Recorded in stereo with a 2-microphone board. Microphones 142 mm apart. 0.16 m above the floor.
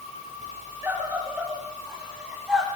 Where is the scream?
10° right (ahead or behind), 9.5 m; by 2.7 s 5° right (ahead or behind), 9.5 m.